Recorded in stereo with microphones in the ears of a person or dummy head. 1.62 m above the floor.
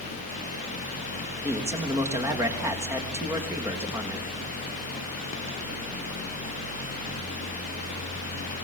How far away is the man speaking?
About 3 m.